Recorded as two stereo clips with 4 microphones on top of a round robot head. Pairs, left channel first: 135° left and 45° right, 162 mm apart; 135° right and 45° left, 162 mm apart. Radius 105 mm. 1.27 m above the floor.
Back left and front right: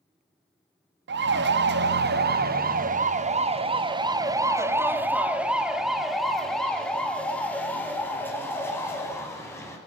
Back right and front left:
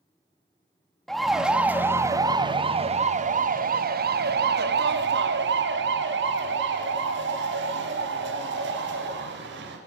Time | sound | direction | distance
1.1 | a siren | 45° right | 2.5 m